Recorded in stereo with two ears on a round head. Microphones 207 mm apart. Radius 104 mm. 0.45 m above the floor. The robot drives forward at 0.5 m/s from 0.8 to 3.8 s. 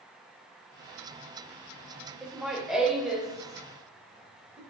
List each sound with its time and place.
2.2 s laughter: 5° right (ahead or behind), 1.1 m; by 4.6 s centre (ahead or behind), 1.7 m